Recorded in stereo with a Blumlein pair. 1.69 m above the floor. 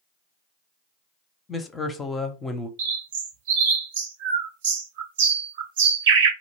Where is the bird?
55° right, 0.6 m.